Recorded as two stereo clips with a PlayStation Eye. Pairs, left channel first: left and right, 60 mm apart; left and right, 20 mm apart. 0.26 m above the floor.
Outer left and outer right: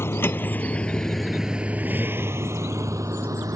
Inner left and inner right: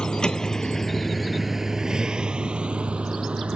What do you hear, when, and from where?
0.0 s a vehicle: 45° left (ahead or behind); by 3.6 s 65° right (ahead or behind)